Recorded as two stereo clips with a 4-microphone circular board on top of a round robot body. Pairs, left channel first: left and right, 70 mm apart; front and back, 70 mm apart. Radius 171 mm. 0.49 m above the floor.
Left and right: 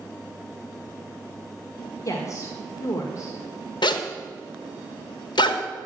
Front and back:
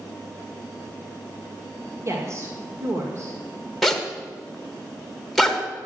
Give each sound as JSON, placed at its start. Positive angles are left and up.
{"t": 2.0, "sound": "a woman speaking", "azimuth_deg": 130, "distance_m": 1.7}
{"t": 3.8, "sound": "a zipper", "azimuth_deg": 85, "distance_m": 1.3}